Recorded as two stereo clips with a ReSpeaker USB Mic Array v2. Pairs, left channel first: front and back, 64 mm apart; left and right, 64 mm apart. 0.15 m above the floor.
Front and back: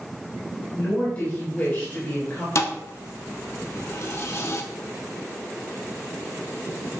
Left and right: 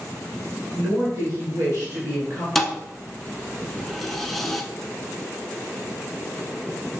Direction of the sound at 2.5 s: 5° left.